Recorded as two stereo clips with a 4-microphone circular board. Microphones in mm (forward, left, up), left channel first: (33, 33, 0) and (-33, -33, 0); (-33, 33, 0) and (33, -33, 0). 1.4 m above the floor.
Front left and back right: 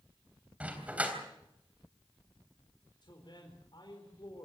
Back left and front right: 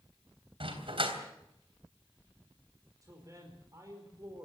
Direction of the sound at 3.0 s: 5° left.